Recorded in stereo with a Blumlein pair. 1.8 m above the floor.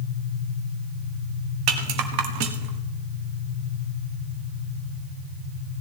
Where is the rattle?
45° right, 1.6 m.